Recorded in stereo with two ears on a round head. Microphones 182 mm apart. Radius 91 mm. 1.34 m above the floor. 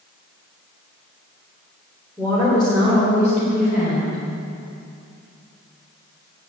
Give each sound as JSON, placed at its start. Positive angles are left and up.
{"t": 2.2, "sound": "a woman speaking", "side_deg": 15, "distance_m": 3.5}